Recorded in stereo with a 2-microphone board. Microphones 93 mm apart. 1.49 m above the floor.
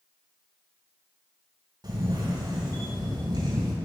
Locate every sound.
1.8 s a camera shutter: 50° right (ahead or behind), 2.5 m